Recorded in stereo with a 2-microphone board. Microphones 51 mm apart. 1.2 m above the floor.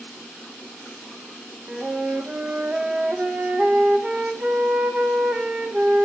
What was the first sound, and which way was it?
A flute, 25° right (ahead or behind).